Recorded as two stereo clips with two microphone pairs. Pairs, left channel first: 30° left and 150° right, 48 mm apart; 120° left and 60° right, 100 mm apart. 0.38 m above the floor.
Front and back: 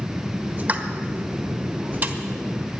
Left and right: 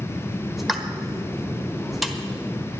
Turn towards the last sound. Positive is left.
turn(degrees=-150)